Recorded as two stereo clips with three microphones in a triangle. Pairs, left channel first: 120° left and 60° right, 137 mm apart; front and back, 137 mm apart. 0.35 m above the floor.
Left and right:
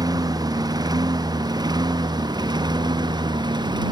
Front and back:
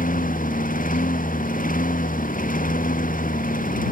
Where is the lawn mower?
Straight ahead.